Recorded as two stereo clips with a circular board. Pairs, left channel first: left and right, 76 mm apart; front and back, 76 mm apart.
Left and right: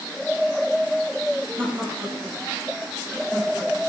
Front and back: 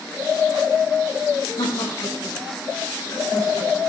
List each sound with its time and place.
1.6 s laughter: 25° right, 6.5 m; by 3.8 s 10° right, 5.5 m